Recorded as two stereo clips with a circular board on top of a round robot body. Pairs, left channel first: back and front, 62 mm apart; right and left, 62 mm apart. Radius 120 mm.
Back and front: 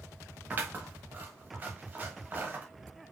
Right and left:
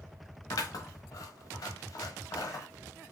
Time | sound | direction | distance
0.5 | scissors | 65° right | 1.3 m